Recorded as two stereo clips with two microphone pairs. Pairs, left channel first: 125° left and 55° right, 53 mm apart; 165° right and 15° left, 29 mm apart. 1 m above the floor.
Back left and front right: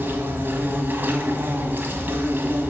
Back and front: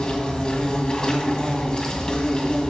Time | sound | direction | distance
0.0 | an insect | 105° right | 1.6 m